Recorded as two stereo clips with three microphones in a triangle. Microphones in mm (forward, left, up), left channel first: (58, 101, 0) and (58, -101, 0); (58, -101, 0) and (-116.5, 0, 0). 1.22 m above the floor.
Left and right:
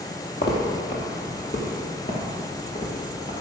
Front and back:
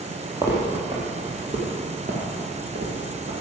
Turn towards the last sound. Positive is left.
turn(degrees=140)